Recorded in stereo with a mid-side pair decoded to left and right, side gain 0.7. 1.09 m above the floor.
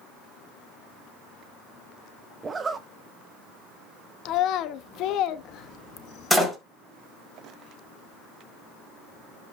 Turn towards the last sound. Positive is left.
turn(degrees=5)